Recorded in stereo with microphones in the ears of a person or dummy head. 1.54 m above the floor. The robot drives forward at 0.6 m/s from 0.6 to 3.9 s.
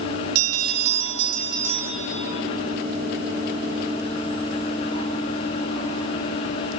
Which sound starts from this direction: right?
A bell, at 0.3 s.